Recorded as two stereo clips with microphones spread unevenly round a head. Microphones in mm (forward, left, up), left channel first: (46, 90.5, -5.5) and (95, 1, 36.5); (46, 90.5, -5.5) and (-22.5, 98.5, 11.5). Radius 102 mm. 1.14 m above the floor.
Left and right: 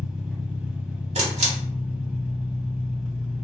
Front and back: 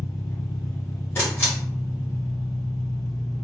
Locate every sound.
0.0 s an engine running: 30° left, 1.2 m
1.1 s a camera shutter: 45° right, 1.0 m